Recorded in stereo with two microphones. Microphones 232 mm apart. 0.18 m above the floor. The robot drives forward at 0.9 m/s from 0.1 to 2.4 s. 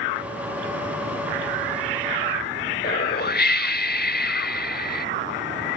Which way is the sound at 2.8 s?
45° left (ahead or behind).